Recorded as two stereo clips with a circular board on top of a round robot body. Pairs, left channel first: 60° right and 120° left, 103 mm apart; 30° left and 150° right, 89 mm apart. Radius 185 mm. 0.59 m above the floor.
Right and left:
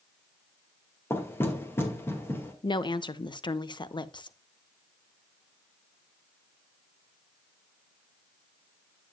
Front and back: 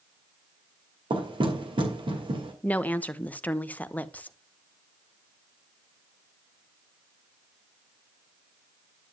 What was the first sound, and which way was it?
Knocking, 130° right.